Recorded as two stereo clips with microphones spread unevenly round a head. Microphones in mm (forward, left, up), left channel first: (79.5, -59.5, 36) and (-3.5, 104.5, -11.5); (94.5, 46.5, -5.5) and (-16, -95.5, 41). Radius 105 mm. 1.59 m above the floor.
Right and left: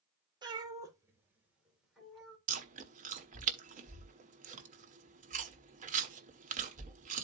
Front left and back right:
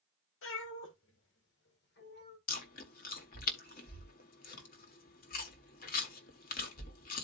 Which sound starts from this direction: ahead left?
A cat meowing, at 0.4 s.